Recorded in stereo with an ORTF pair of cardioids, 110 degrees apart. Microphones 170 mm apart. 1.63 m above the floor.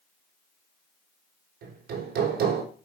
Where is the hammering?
70° right, 4 m.